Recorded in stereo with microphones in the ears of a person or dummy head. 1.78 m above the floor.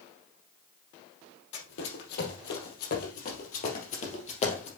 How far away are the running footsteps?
About 3.5 m.